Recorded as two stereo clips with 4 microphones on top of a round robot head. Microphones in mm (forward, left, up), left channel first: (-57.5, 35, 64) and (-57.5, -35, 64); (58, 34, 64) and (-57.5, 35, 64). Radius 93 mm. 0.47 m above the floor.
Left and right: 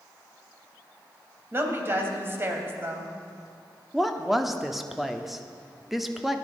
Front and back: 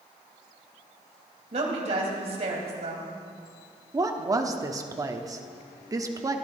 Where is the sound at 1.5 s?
145° right, 2.5 m.